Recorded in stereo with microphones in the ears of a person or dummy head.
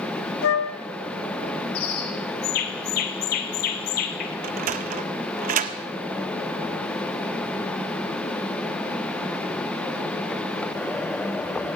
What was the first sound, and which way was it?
A flute, 70° left (ahead or behind).